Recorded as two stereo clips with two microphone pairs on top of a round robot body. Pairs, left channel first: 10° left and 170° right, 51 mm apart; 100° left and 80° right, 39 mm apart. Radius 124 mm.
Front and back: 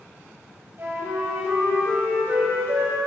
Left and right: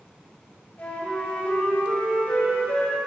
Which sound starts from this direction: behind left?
A flute, at 0.8 s.